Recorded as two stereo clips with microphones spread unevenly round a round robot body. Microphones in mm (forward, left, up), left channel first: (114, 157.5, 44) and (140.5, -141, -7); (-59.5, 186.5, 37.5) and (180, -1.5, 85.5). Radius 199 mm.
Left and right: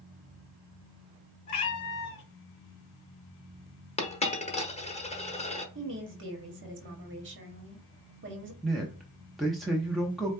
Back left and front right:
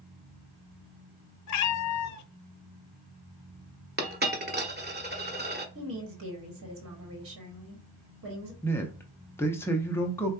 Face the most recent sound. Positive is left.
turn(degrees=-160)